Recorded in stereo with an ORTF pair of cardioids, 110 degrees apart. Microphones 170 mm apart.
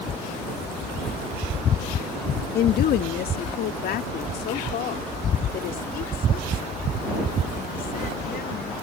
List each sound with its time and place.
2.5 s a woman speaking: 65° left